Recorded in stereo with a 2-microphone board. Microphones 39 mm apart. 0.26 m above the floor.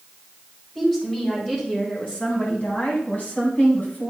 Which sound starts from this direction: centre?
A woman speaking, at 0.8 s.